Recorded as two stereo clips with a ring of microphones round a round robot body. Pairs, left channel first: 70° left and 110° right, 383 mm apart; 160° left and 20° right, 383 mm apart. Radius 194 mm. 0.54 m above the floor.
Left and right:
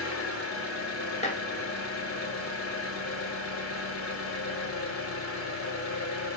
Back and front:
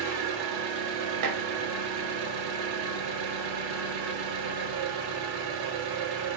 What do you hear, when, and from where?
0.0 s an engine running: 10° left, 1.0 m
1.2 s dishes clattering: straight ahead, 0.9 m